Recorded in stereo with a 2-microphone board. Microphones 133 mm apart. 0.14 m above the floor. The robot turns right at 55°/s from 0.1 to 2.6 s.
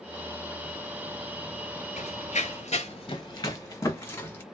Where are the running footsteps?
65° left (ahead or behind), 0.7 m; by 4.4 s 15° left (ahead or behind), 1.8 m.